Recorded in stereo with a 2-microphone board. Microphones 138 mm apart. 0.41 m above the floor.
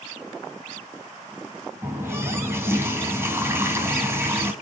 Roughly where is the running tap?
Centre.